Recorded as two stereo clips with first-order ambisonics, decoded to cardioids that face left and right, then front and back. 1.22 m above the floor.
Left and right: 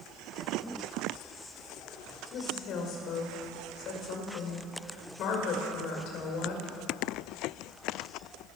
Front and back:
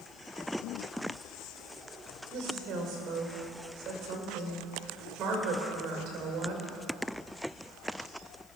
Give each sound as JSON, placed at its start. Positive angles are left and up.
{"t": 2.3, "sound": "a woman speaking", "azimuth_deg": 135, "distance_m": 5.0}